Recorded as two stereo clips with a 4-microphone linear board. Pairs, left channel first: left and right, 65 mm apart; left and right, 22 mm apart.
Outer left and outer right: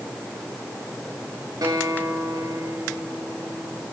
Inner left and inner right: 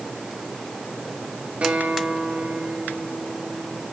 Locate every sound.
1.6 s a guitar: 70° right (ahead or behind), 3.5 m